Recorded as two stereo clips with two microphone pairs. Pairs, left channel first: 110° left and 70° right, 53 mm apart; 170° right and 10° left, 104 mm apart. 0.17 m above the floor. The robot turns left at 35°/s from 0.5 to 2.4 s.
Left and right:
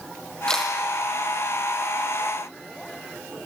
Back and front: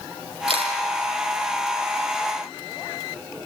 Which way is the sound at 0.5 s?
30° left.